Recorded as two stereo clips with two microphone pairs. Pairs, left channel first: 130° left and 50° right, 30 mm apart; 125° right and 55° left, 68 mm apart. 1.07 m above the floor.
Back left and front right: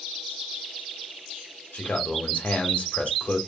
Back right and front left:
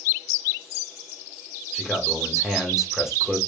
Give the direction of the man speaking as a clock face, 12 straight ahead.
7 o'clock.